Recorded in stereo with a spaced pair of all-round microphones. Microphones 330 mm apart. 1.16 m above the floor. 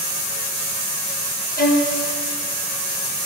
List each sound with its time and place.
1.6 s a violin: 25° left (ahead or behind), 1.2 m